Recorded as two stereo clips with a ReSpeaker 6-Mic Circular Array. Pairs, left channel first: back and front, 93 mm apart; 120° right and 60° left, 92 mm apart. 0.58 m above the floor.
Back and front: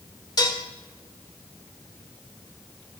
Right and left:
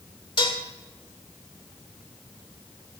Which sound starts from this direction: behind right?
Dishes clattering, at 0.4 s.